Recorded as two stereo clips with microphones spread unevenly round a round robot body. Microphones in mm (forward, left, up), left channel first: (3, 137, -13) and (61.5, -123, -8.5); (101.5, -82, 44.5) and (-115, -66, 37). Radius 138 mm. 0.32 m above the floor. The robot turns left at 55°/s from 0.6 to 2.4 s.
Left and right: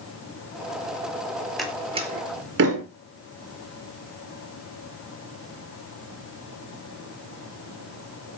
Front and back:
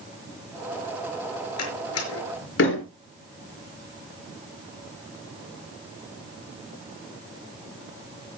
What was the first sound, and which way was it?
A door slam, 15° left.